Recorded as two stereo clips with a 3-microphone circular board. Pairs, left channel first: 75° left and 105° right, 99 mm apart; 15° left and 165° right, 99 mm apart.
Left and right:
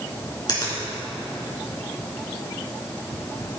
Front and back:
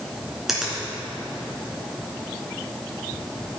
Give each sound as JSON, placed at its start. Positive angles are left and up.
{"t": 0.5, "sound": "a finger snap", "azimuth_deg": 110, "distance_m": 3.0}